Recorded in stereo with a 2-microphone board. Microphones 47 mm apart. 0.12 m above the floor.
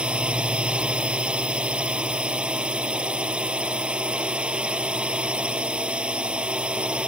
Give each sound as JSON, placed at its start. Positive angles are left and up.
{"t": 0.0, "sound": "a drone", "side_deg": -20}